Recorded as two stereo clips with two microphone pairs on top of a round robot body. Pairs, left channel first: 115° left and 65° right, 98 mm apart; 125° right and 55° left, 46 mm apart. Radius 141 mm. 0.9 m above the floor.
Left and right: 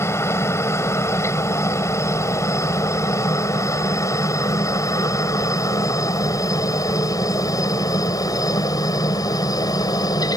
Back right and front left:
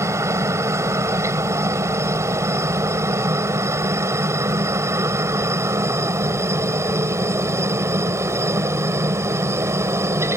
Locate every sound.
0.0 s a helicopter: 55° left; by 10.4 s 65° left